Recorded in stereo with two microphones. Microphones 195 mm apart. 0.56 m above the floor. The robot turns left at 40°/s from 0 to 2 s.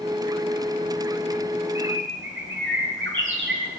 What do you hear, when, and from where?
1.8 s a bird: 80° right, 3.5 m; by 3.7 s 75° right (ahead or behind), 3.5 m